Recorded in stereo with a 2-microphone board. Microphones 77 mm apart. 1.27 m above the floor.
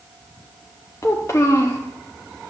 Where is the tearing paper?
No tearing paper in this recording.